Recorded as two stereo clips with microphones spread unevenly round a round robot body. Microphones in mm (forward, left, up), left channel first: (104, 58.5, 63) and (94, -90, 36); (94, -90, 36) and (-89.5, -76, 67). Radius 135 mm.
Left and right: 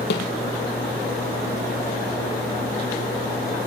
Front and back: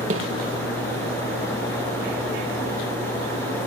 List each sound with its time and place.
0.1 s a snare drum: 115° left, 4 m